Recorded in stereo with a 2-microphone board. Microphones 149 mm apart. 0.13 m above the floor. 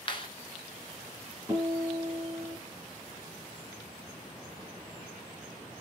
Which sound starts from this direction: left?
A clap, at 0.1 s.